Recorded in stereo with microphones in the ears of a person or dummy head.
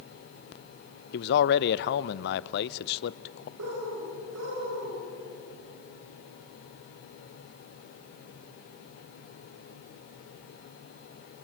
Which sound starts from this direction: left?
A man speaking, at 1.1 s.